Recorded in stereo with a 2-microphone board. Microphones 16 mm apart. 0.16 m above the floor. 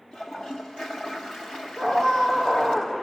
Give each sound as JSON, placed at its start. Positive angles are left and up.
{"t": 0.1, "sound": "a toilet flushing", "side_deg": 90, "distance_m": 3.5}
{"t": 1.8, "sound": "a scream", "side_deg": 75, "distance_m": 6.5}